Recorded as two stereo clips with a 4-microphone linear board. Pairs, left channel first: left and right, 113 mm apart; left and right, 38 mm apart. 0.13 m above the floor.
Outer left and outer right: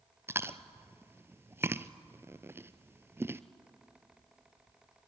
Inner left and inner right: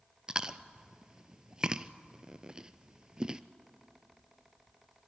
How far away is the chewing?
About 0.6 m.